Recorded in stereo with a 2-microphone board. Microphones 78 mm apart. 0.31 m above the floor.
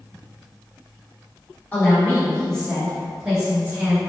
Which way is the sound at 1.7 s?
20° left (ahead or behind).